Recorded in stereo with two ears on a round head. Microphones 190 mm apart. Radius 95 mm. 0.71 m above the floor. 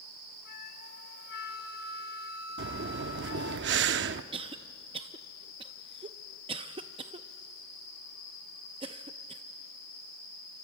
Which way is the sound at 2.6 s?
55° right (ahead or behind).